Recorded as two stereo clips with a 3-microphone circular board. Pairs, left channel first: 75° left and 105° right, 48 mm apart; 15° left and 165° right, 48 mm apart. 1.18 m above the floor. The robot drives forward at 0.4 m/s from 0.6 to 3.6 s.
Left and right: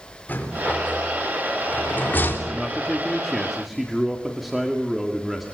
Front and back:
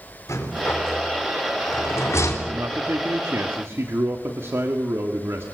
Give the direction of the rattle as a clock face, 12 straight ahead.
11 o'clock.